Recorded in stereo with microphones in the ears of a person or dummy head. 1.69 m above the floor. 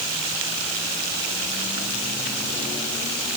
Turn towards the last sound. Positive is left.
No sound to turn to.